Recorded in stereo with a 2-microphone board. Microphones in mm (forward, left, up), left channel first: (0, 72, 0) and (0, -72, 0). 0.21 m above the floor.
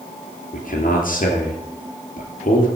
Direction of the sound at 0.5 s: 70° left (ahead or behind).